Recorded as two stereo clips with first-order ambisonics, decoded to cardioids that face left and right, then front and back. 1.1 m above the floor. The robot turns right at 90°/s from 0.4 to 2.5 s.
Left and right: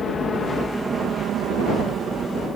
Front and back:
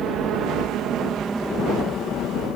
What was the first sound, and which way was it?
A helicopter, 155° left.